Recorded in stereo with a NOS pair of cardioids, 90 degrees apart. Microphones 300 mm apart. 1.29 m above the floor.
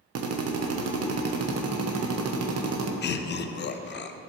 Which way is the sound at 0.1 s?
60° right.